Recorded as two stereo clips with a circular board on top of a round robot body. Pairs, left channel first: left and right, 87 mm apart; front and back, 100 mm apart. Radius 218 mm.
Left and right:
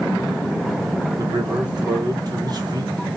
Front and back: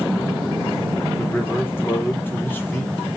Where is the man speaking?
65° right, 1.3 m.